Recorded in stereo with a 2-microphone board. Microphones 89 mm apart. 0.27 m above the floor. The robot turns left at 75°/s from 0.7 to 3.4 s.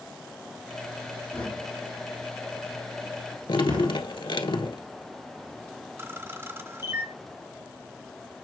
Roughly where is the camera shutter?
Right.